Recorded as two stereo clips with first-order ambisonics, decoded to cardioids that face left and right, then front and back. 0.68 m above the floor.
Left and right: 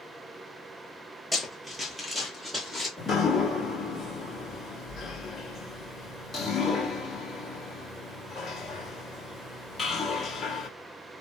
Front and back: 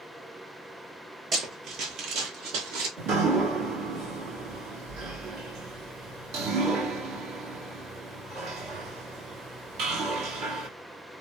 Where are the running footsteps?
175° right, 0.7 m; by 2.9 s 170° right, 1.3 m.